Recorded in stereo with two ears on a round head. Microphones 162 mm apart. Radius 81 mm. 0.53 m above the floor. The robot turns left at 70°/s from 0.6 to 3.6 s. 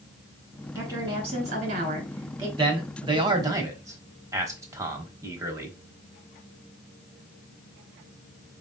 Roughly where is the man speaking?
Right.